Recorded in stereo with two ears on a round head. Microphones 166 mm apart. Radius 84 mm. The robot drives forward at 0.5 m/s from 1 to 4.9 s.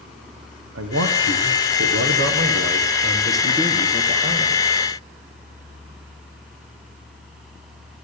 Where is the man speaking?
75° right (ahead or behind), 1.1 m; by 4.6 s 35° right (ahead or behind), 1.9 m.